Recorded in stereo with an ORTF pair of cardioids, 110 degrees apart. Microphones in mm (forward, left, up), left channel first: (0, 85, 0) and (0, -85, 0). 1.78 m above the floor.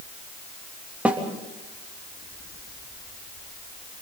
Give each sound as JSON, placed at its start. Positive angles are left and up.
{"t": 1.1, "sound": "a snare drum", "azimuth_deg": -10, "distance_m": 3.0}